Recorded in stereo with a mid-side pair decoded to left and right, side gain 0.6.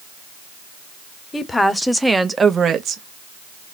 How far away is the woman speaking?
About 1.0 m.